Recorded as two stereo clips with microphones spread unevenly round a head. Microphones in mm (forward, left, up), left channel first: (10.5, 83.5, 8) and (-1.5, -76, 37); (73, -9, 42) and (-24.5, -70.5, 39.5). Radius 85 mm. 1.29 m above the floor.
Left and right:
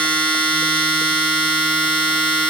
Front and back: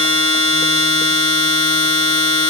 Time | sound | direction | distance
0.0 | a machine running | 15° right | 1.4 m